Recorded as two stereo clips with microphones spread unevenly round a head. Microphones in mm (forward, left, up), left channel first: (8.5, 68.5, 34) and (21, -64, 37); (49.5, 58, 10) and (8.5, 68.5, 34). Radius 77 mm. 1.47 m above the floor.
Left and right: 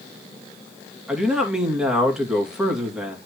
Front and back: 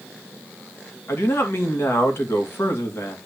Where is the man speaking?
Straight ahead, 3 m.